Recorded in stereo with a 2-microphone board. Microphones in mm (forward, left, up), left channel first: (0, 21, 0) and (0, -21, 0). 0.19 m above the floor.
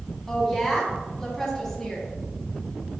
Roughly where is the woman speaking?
Centre.